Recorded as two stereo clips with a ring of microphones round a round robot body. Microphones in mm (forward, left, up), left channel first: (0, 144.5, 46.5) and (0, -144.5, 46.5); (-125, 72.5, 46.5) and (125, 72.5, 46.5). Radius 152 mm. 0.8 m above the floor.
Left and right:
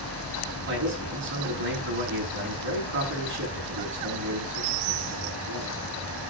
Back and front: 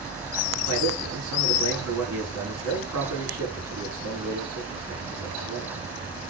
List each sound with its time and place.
0.7 s a man speaking: 40° right, 6.5 m